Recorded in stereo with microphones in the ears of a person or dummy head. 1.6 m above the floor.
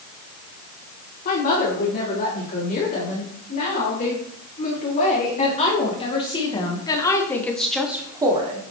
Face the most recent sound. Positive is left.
turn(degrees=-25)  # may be behind; listen again after turning